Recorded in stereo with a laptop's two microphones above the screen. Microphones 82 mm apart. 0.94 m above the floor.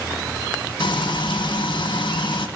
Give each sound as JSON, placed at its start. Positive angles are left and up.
{"t": 0.8, "sound": "frying", "side_deg": 80, "distance_m": 1.4}